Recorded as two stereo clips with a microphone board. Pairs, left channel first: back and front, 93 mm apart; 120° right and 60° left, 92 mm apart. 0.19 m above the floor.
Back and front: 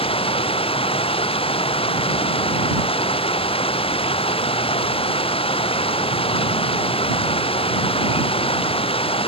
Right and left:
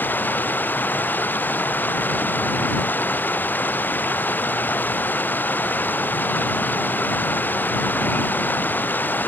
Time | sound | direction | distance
0.0 | running water | 170° left | ?